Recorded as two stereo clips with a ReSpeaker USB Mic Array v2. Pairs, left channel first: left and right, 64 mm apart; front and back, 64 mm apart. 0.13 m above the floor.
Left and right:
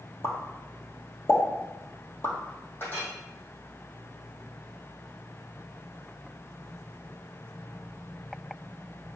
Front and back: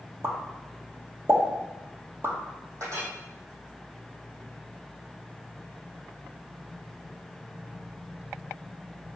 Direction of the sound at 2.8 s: 145° left.